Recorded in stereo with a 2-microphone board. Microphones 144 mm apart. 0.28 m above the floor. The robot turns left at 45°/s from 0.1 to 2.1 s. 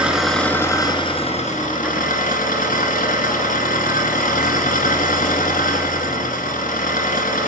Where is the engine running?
175° right, 2 m; by 7.5 s 95° left, 2 m.